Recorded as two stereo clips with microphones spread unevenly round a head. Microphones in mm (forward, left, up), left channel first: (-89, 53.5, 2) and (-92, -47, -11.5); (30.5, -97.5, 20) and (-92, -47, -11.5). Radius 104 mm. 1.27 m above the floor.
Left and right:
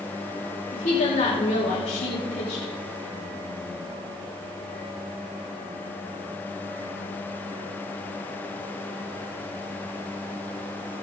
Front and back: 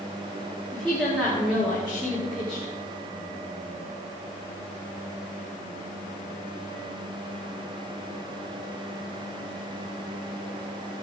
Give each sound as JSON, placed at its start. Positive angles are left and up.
{"t": 0.7, "sound": "a woman speaking", "azimuth_deg": 70, "distance_m": 3.5}